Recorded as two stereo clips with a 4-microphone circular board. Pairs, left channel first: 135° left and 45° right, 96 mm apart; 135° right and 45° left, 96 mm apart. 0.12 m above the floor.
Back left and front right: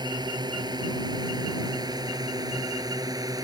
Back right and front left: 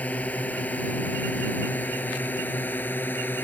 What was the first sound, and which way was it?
A drone, 65° right.